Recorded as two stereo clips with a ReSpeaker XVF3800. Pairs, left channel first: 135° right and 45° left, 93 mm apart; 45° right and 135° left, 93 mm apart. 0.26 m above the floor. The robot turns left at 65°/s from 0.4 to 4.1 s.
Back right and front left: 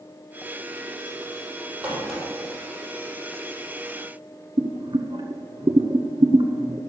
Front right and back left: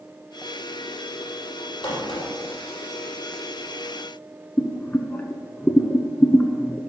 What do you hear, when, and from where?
1.8 s a crack: 30° right, 5 m; by 2.3 s 55° right, 5 m
4.6 s boiling: 30° left, 0.9 m